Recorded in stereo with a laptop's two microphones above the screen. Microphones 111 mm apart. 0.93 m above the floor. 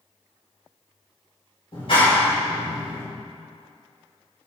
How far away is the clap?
About 3.5 m.